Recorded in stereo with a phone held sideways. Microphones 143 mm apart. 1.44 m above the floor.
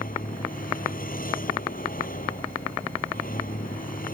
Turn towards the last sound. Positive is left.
turn(degrees=75)  # may be behind; listen again after turning